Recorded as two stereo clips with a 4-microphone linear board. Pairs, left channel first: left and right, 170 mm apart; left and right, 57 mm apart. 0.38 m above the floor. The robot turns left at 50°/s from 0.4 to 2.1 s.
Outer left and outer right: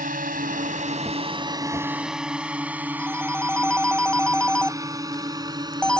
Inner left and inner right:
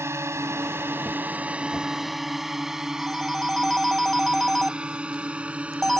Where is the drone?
60° right (ahead or behind); by 6.0 s 25° right (ahead or behind).